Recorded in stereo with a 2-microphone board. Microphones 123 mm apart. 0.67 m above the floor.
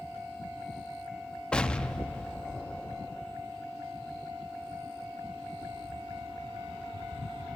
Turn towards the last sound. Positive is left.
turn(degrees=10)  # may be behind; listen again after turning